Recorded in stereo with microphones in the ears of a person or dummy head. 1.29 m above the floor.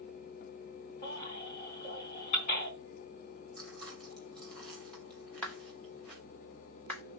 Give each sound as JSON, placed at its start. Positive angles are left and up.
{"t": 1.0, "sound": "a baby crying", "side_deg": 40, "distance_m": 4.5}
{"t": 3.6, "sound": "chewing", "side_deg": 0, "distance_m": 2.5}
{"t": 5.4, "sound": "a clap", "side_deg": 5, "distance_m": 2.0}